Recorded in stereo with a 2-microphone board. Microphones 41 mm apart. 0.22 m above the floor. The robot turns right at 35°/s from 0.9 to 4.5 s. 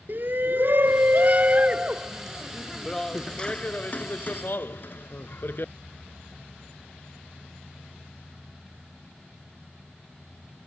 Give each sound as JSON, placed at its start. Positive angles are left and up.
{"t": 0.1, "sound": "a shout", "azimuth_deg": -60}